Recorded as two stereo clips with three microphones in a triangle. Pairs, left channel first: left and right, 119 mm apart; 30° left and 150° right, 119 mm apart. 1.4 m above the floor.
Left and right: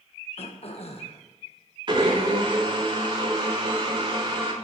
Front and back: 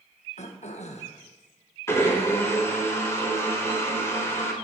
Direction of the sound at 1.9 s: 40° right.